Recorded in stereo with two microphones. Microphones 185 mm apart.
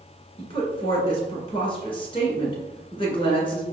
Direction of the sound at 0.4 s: 30° left (ahead or behind).